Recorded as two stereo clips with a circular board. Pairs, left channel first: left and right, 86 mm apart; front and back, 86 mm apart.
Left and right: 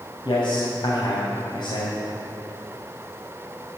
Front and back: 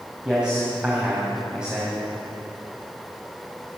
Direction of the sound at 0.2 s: 100° left.